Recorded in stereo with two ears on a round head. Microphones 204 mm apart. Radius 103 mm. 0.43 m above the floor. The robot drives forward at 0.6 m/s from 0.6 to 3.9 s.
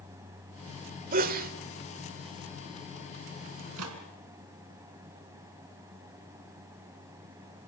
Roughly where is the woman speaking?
I don't hear a woman speaking.